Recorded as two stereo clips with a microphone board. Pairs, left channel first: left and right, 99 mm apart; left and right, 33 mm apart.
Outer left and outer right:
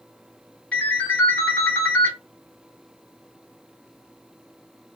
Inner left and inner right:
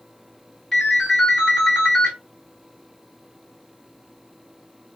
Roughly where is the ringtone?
Centre.